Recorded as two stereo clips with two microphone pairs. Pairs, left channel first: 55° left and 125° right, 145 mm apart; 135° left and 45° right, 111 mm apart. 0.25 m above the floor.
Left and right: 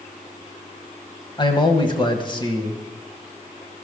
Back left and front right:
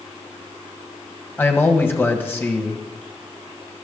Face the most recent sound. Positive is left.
turn(degrees=80)